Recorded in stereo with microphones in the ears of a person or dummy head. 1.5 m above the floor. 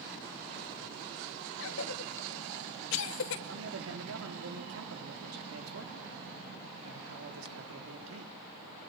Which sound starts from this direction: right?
A man speaking, at 3.5 s.